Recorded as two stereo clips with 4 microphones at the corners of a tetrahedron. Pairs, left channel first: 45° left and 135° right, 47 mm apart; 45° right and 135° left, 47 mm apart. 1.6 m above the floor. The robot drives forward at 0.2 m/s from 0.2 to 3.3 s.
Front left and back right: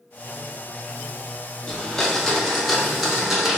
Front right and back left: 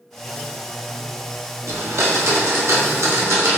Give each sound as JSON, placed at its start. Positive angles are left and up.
{"t": 1.7, "sound": "a blender", "azimuth_deg": 120, "distance_m": 0.6}